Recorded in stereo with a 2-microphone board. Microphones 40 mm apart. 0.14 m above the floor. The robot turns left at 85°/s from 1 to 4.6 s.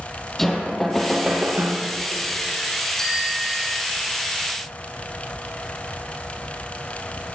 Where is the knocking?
5° left, 3 m; by 1.9 s 70° right, 3 m.